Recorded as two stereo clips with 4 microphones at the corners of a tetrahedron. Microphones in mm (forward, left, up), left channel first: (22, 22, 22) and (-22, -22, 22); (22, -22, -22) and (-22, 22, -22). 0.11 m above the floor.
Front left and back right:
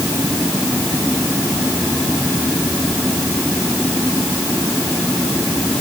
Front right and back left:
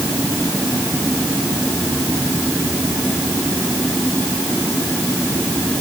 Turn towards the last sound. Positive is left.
No sound to turn to.